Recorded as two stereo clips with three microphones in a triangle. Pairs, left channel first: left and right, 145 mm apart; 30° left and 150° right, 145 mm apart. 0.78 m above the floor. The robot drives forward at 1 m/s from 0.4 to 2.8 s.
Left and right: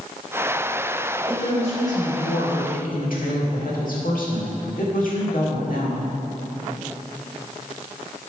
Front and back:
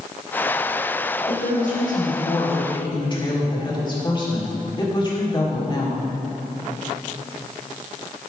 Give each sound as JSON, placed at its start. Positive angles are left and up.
{"t": 1.3, "sound": "a woman speaking", "azimuth_deg": 45, "distance_m": 2.5}